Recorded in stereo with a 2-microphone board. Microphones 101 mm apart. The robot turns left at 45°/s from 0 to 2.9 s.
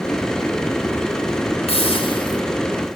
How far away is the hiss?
About 3.5 m.